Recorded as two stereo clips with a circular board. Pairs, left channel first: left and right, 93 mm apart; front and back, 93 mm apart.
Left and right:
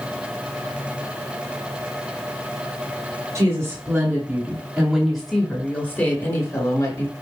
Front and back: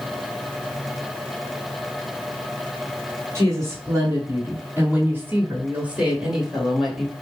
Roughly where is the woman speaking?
Behind right.